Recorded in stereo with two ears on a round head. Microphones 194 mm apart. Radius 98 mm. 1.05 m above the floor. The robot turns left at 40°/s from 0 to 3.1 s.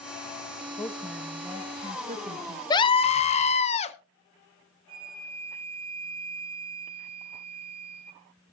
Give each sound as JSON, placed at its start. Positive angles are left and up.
{"t": 0.8, "sound": "a woman speaking", "azimuth_deg": 20, "distance_m": 1.5}
{"t": 2.7, "sound": "a scream", "side_deg": 20, "distance_m": 1.0}
{"t": 4.9, "sound": "a flute", "side_deg": -25, "distance_m": 3.0}